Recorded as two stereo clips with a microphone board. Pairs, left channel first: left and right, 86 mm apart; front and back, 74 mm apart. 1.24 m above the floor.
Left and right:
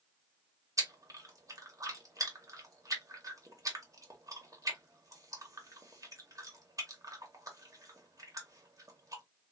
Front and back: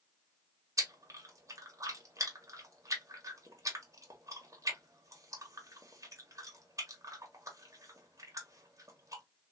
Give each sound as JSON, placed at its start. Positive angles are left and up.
{"t": 0.8, "sound": "chewing", "azimuth_deg": -135, "distance_m": 1.2}